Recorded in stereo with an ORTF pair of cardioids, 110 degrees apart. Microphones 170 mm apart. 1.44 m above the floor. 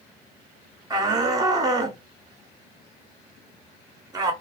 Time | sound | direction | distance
0.9 | a shout | 20° right | 1.0 m